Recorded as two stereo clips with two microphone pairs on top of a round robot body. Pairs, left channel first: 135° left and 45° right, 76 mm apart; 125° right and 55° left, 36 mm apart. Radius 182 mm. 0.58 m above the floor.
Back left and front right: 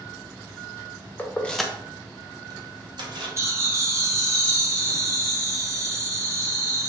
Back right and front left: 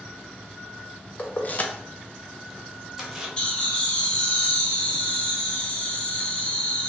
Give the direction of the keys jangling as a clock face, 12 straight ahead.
5 o'clock.